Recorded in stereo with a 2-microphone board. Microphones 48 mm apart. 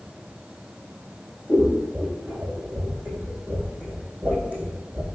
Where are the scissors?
25° right (ahead or behind), 2.5 m.